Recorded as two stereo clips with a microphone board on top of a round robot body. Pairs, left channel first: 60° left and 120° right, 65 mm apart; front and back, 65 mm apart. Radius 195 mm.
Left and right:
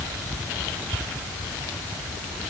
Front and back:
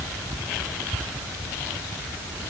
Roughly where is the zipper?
I don't hear a zipper.